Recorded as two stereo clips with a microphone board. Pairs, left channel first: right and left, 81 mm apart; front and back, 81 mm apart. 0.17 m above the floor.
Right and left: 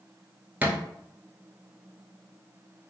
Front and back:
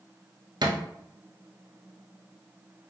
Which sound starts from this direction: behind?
A thud, at 0.6 s.